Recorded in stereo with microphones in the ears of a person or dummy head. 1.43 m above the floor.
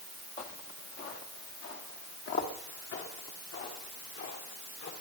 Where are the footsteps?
40° left (ahead or behind), 2.0 m; by 4.9 s 60° left (ahead or behind), 4.5 m.